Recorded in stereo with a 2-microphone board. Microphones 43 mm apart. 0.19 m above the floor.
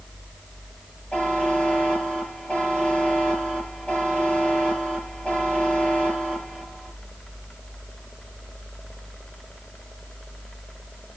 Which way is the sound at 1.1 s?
20° left (ahead or behind).